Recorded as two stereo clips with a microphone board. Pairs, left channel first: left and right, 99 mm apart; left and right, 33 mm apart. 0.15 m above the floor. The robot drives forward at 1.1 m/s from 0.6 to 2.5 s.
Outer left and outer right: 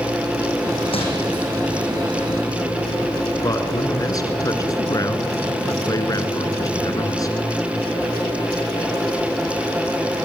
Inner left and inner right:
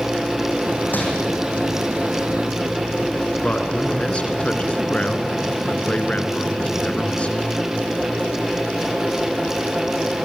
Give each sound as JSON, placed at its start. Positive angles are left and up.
{"t": 0.9, "sound": "crumpling", "side_deg": 70, "distance_m": 5.5}
{"t": 3.4, "sound": "a man speaking", "side_deg": 35, "distance_m": 2.5}